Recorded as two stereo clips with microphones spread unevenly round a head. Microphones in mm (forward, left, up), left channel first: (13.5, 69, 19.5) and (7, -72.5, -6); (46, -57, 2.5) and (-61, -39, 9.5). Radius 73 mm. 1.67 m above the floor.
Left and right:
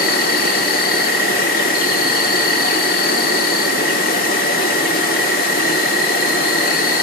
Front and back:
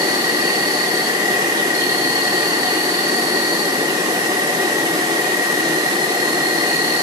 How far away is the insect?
About 1.1 m.